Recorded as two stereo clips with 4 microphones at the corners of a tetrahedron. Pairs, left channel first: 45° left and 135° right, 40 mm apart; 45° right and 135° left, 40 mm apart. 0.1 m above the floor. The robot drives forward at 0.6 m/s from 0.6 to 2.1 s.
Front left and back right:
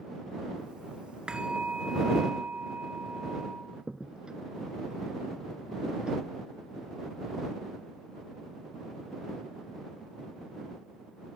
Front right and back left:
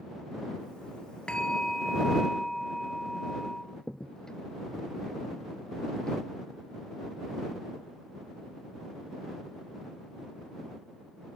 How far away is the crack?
About 1.0 m.